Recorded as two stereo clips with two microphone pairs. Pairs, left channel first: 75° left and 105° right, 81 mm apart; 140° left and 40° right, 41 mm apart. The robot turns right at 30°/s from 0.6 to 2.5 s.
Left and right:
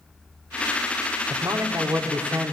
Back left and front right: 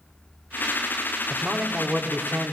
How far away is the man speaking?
About 0.8 m.